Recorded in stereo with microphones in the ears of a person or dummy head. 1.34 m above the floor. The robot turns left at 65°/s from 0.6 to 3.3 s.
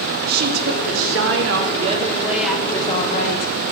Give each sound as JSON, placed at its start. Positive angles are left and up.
{"t": 0.3, "sound": "a woman speaking", "azimuth_deg": -60, "distance_m": 0.6}